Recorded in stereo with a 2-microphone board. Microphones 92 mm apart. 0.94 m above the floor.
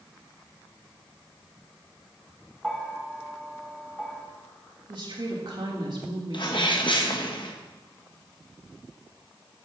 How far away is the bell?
About 1.1 m.